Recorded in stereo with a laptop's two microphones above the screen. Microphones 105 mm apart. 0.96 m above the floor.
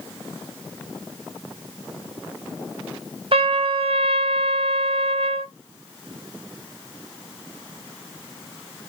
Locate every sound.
3.3 s a trumpet: 60° right (ahead or behind), 1.1 m